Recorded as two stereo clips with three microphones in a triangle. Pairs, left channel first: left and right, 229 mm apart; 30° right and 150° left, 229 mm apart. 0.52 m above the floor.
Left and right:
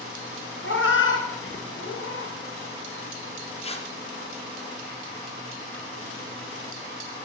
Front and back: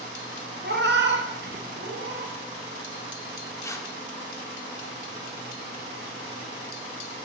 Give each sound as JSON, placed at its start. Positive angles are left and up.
{"t": 0.6, "sound": "a cat meowing", "azimuth_deg": 115, "distance_m": 0.5}
{"t": 3.6, "sound": "tearing paper", "azimuth_deg": 40, "distance_m": 0.5}